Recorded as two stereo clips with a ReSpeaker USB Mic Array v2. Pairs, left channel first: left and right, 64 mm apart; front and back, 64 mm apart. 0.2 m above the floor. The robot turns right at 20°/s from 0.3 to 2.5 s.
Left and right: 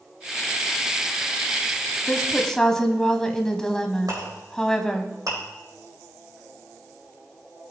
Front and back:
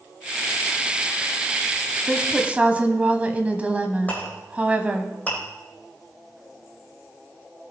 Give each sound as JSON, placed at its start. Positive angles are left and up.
{"t": 2.1, "sound": "a woman speaking", "azimuth_deg": 150, "distance_m": 1.0}
{"t": 4.1, "sound": "a clink", "azimuth_deg": -65, "distance_m": 5.0}